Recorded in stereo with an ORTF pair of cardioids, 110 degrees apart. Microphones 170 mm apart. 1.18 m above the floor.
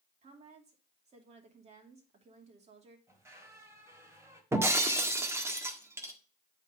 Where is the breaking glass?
15° right, 1.5 m.